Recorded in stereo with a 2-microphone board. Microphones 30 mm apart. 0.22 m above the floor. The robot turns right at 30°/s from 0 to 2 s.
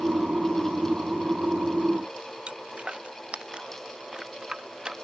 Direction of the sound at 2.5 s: 40° right (ahead or behind).